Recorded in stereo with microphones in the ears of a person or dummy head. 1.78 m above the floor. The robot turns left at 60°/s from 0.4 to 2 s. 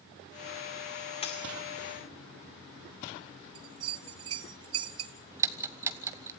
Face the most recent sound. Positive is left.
turn(degrees=-15)  # may be behind; listen again after turning